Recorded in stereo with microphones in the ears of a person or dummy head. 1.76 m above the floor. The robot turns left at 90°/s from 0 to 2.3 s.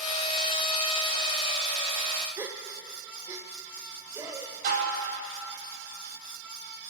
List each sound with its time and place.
2.4 s a gasp: 20° right (ahead or behind), 1.1 m
4.6 s dishes clattering: 65° right (ahead or behind), 5 m